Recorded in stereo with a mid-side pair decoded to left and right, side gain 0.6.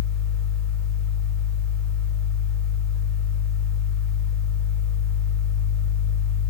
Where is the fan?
35° left, 1.7 m.